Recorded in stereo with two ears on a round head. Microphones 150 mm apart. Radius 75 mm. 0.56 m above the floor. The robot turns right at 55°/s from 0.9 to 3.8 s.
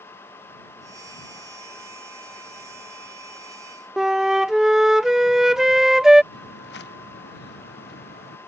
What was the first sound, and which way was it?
A flute, centre (ahead or behind).